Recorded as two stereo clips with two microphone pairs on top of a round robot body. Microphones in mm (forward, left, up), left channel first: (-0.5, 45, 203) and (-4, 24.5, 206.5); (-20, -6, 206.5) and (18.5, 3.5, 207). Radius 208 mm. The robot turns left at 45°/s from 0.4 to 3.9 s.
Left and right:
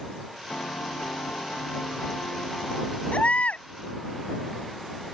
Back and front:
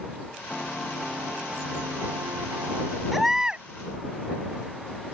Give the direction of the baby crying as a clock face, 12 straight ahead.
9 o'clock.